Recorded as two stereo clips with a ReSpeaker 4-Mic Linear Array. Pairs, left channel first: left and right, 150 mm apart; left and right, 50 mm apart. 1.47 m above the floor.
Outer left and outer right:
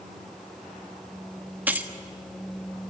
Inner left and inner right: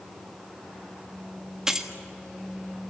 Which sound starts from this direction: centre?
Keys jangling, at 1.7 s.